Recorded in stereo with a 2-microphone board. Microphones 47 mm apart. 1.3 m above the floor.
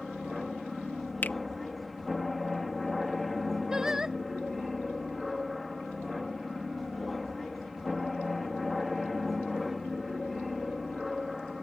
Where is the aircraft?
5° left (ahead or behind).